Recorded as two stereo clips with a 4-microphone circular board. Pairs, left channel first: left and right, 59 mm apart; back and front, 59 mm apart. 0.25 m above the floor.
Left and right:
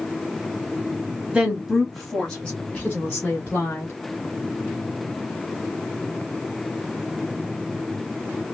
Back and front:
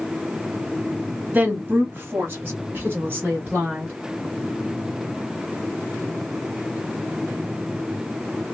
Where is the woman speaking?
30° right, 1.1 m; by 3.9 s 45° left, 1.8 m.